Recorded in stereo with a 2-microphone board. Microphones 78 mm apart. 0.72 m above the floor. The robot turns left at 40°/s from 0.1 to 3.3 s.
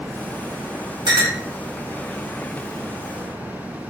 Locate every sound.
1.1 s a clink: 80° right, 0.7 m; by 1.4 s 65° right (ahead or behind), 0.7 m